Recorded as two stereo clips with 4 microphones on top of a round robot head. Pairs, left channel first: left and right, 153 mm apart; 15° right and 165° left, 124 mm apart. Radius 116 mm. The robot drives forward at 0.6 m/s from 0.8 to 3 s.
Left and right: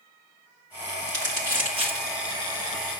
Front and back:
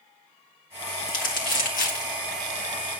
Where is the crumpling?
20° right, 2 m; by 2.2 s 30° right, 1.4 m.